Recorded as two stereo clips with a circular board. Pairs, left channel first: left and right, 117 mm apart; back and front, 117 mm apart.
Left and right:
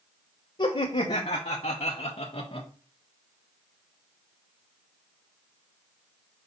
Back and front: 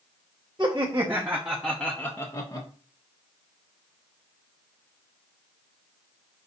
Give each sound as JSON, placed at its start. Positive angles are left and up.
{"t": 0.6, "sound": "laughter", "azimuth_deg": 55, "distance_m": 1.1}